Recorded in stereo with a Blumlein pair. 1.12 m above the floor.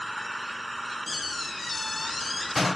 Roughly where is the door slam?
Ahead.